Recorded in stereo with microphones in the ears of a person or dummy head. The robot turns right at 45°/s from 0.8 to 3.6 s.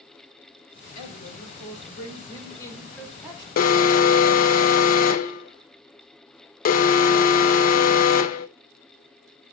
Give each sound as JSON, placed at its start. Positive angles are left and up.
{"t": 0.9, "sound": "a woman speaking", "azimuth_deg": 85, "distance_m": 3.5}
{"t": 3.6, "sound": "an alarm", "side_deg": 45, "distance_m": 0.6}